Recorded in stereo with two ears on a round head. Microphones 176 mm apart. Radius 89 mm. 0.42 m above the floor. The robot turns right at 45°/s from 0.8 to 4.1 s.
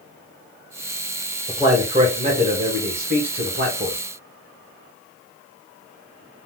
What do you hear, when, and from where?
1.5 s a man speaking: 15° right (ahead or behind), 1.7 m; by 4.0 s 35° right (ahead or behind), 1.7 m